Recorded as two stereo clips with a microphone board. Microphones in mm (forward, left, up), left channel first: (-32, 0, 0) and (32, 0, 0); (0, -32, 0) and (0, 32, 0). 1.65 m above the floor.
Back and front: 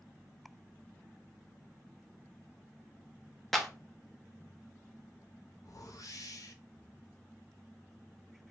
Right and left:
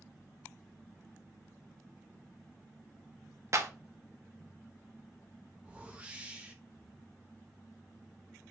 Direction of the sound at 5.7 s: 160° left.